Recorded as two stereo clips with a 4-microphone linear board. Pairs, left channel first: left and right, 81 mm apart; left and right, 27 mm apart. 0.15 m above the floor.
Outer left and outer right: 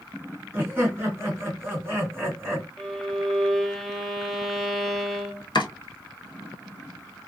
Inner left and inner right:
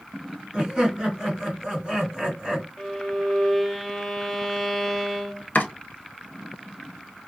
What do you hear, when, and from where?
0.5 s laughter: 25° right (ahead or behind), 1.6 m
2.8 s a violin: 5° left (ahead or behind), 0.6 m
5.5 s chopping: 65° left (ahead or behind), 0.8 m